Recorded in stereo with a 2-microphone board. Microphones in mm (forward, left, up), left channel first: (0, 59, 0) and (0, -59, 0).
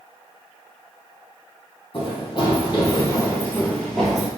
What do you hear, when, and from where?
1.9 s running footsteps: 50° left (ahead or behind), 2.5 m; by 4.3 s 5° right (ahead or behind), 1.6 m